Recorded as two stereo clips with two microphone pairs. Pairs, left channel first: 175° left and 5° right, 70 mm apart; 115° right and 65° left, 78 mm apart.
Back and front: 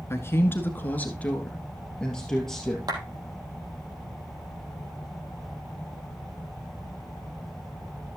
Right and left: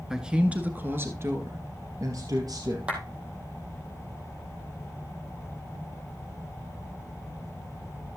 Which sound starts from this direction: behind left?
A man speaking, at 0.1 s.